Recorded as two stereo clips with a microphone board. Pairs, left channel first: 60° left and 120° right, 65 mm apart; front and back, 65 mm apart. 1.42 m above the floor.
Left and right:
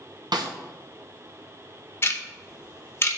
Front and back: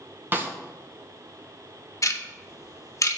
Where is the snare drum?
120° right, 1.0 m.